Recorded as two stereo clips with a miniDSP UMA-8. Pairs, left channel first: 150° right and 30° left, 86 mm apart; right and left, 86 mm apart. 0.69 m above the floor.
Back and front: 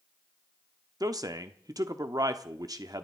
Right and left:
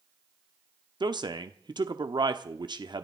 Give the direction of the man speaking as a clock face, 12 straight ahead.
10 o'clock.